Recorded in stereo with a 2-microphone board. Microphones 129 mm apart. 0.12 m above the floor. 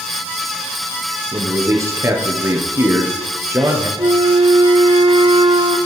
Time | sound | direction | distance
1.3 | a man speaking | 20° right (ahead or behind) | 2.5 m
4.0 | a flute | 40° right (ahead or behind) | 0.8 m